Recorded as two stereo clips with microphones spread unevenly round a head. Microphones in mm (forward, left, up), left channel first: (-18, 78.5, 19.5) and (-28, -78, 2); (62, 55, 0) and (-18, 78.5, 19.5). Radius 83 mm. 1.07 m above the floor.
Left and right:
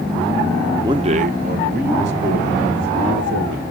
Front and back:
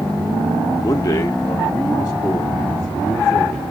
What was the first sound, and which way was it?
A man speaking, 35° right.